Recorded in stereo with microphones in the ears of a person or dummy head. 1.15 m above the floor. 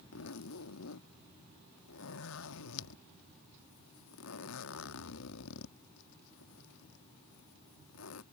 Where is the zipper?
75° left (ahead or behind).